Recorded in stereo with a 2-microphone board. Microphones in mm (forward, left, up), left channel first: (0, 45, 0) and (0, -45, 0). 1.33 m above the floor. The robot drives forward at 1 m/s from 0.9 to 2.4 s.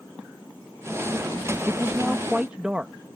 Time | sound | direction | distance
1.7 | a man speaking | 25° right (ahead or behind) | ?